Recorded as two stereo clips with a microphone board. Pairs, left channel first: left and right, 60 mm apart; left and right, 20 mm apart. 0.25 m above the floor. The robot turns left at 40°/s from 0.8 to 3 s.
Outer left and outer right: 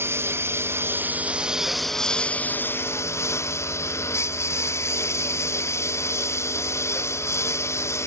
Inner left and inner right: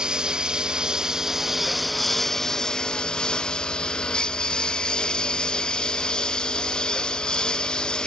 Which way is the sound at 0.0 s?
140° right.